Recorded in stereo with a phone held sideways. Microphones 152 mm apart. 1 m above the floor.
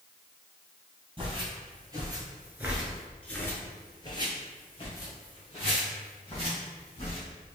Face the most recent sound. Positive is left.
turn(degrees=40)  # may be behind; listen again after turning